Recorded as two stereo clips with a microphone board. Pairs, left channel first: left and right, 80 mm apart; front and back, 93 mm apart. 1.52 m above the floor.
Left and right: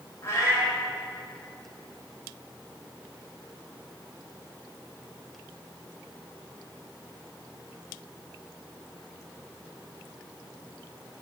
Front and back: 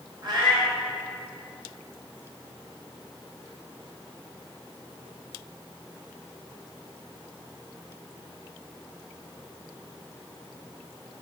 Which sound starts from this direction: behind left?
A cat meowing, at 0.2 s.